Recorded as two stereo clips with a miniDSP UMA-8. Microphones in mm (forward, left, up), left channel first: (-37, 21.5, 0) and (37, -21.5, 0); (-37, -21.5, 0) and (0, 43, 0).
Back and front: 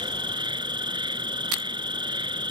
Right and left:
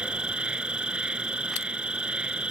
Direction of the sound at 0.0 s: 15° right.